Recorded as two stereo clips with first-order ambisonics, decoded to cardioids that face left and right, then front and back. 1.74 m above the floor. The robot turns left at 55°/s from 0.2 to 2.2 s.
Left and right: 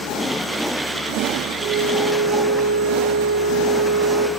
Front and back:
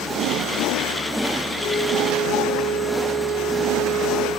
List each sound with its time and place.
1.6 s a flute: 65° right, 1.4 m; by 4.3 s 100° right, 1.4 m